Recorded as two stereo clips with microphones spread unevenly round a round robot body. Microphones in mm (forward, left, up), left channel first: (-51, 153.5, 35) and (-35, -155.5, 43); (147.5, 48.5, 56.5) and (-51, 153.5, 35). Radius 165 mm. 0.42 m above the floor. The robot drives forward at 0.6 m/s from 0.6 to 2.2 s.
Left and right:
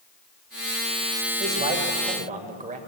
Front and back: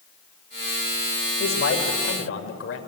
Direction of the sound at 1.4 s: 20° right.